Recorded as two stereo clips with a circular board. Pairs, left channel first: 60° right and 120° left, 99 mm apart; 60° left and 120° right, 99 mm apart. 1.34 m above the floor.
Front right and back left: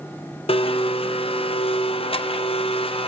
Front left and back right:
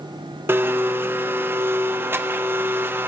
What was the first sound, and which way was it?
A blender, 50° right.